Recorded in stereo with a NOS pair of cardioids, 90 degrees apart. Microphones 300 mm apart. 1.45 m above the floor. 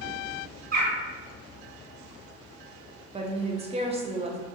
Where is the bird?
45° right, 1.7 m.